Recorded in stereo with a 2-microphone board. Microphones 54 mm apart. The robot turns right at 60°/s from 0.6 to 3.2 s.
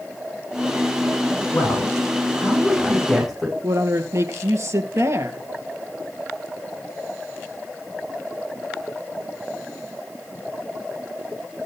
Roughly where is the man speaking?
Left.